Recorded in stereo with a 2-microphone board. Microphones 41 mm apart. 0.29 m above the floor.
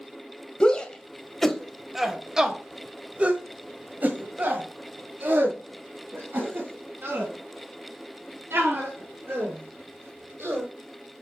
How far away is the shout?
About 1.5 m.